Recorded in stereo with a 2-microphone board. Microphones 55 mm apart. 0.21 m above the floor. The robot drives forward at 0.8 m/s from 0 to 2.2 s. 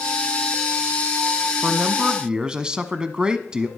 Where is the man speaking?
20° right (ahead or behind), 1.0 m; by 3.7 s 15° right (ahead or behind), 1.3 m.